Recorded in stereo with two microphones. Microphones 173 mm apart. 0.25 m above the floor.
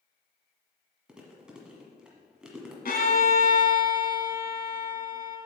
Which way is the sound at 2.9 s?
60° left (ahead or behind).